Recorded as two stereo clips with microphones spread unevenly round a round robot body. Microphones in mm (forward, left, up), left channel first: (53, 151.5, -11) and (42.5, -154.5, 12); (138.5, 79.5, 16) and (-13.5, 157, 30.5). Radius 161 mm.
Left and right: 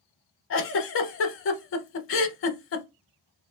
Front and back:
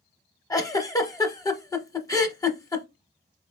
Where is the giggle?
45° left, 0.7 m.